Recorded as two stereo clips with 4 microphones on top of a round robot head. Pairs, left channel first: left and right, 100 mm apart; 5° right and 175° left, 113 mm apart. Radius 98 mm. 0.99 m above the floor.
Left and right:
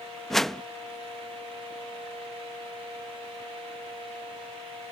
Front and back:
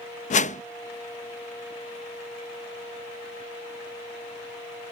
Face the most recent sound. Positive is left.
turn(degrees=5)